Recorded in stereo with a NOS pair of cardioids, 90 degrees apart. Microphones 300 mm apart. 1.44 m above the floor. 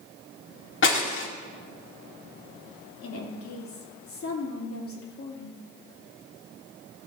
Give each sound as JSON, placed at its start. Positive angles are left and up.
{"t": 0.8, "sound": "breaking glass", "azimuth_deg": 45, "distance_m": 2.0}
{"t": 3.0, "sound": "a woman speaking", "azimuth_deg": 50, "distance_m": 3.0}